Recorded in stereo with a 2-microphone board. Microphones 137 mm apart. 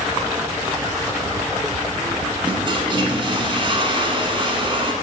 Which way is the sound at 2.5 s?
40° right (ahead or behind).